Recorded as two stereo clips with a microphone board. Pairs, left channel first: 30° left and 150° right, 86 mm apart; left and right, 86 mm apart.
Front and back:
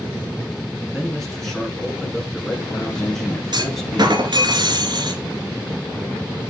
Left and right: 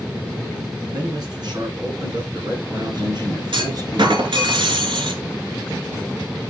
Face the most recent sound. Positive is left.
turn(degrees=-115)